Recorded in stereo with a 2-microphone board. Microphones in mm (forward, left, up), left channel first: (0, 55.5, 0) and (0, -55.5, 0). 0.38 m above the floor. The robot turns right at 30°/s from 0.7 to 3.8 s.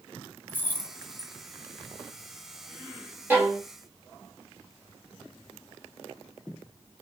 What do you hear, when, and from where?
0.5 s keys jangling: 15° left (ahead or behind), 0.9 m; by 1.3 s centre (ahead or behind), 0.9 m
3.3 s a violin: 20° right (ahead or behind), 1.3 m; by 3.6 s 15° right (ahead or behind), 1.3 m